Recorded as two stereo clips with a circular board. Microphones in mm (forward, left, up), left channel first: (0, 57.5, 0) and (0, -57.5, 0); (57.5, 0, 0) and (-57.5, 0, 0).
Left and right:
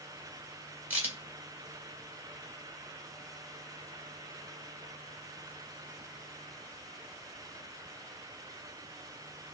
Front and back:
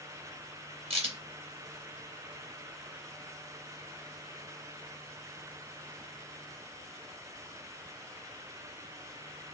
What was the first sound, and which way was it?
A crack, 165° right.